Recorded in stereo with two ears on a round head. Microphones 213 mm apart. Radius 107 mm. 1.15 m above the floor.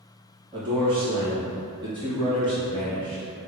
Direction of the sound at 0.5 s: 20° right (ahead or behind).